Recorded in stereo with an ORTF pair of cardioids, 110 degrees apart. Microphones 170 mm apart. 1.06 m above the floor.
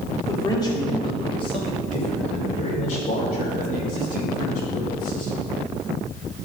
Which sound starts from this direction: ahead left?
A man speaking, at 0.2 s.